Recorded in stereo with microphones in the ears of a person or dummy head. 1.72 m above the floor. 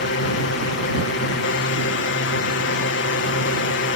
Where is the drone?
60° left (ahead or behind).